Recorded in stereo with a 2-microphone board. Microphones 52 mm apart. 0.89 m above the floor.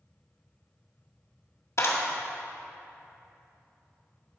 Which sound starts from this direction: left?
A clap, at 1.8 s.